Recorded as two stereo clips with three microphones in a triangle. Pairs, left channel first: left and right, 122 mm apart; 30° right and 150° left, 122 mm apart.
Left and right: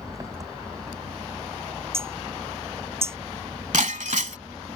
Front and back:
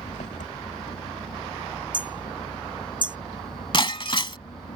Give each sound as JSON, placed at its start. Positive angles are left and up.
{"t": 0.0, "sound": "an engine running", "azimuth_deg": -25}
{"t": 1.9, "sound": "hammering", "azimuth_deg": -160}
{"t": 3.7, "sound": "breaking glass", "azimuth_deg": -80}